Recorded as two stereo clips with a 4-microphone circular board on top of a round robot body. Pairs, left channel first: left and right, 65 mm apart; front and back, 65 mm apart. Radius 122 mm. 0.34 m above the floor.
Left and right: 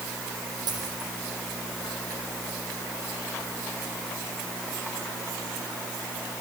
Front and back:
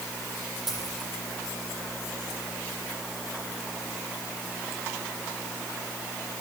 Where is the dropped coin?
95° right, 9 m.